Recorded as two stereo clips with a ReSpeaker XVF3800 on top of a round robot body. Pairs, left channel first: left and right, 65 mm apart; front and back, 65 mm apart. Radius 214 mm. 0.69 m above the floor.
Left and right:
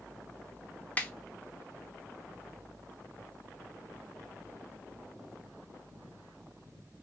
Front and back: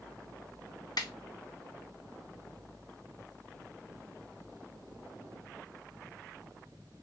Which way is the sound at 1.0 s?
20° left.